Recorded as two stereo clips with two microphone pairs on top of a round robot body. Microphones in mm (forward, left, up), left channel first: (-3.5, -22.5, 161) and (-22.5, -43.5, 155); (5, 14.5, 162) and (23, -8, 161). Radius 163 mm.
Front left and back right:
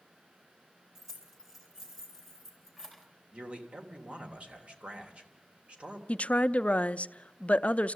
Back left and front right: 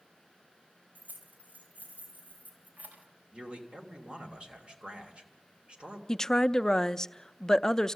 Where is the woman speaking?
65° left, 0.6 m.